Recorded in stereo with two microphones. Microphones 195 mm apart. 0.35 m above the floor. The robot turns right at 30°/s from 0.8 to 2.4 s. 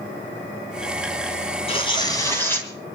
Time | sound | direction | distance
1.7 | tearing paper | 30° left (ahead or behind) | 3 m